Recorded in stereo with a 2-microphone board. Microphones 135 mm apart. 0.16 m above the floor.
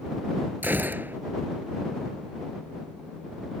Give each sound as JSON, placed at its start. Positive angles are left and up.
{"t": 0.6, "sound": "a gunshot", "side_deg": -15}